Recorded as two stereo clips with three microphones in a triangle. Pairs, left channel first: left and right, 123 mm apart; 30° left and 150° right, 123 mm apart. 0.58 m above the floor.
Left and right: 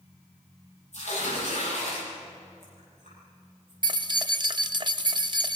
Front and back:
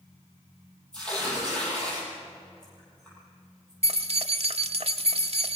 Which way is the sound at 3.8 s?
135° right.